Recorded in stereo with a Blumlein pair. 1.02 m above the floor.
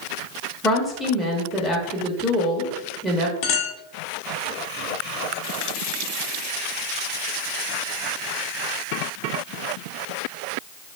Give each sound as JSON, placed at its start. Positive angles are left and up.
{"t": 0.6, "sound": "a woman speaking", "azimuth_deg": -5, "distance_m": 0.8}
{"t": 3.4, "sound": "a clink", "azimuth_deg": 40, "distance_m": 0.9}